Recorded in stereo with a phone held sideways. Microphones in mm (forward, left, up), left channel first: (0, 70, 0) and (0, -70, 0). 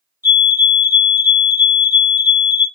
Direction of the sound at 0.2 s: 20° right (ahead or behind).